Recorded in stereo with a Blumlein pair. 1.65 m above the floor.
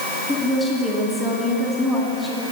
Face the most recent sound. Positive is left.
turn(degrees=0)